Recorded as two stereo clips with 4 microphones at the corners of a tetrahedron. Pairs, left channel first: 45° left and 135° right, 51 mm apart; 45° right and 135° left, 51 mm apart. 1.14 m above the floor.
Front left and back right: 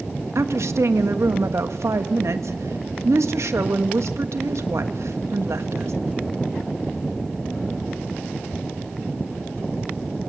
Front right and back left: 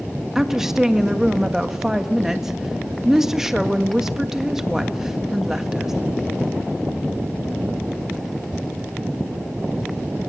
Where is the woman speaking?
145° right, 1.6 m.